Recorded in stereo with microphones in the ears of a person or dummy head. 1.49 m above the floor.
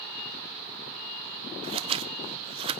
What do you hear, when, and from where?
1.6 s scissors: 30° right (ahead or behind), 1.0 m